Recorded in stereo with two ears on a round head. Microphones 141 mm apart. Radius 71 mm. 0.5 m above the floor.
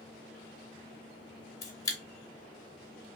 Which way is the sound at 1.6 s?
20° left (ahead or behind).